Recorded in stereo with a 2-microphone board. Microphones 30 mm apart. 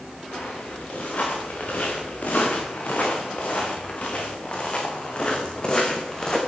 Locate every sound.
0.3 s footsteps: 60° left (ahead or behind), 5.5 m; by 6.4 s 25° left (ahead or behind), 3.5 m